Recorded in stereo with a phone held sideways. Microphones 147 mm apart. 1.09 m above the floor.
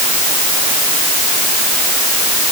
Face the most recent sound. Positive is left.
No sound to turn to.